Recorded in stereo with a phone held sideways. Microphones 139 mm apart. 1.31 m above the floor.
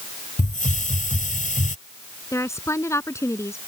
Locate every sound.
0.4 s a hiss: 70° left (ahead or behind)
2.3 s a woman speaking: 20° left (ahead or behind)